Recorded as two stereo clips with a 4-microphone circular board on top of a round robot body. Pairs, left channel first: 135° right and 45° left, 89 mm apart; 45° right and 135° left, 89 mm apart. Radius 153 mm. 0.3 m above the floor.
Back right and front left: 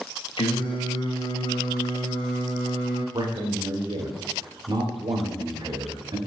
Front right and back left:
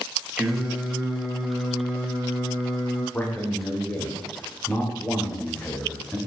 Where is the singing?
140° right, 2.5 m.